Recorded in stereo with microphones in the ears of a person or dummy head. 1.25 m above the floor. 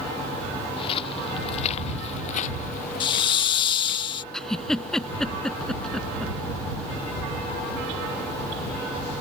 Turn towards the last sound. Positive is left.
turn(degrees=0)  # may be behind; listen again after turning